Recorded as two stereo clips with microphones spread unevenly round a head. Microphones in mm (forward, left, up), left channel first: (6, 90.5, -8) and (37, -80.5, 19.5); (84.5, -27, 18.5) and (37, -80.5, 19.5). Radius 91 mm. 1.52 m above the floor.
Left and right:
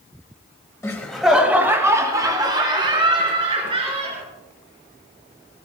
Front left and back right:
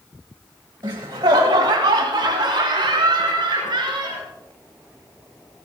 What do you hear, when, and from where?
0.8 s laughter: 175° left, 1.5 m; by 4.2 s 140° right, 5.5 m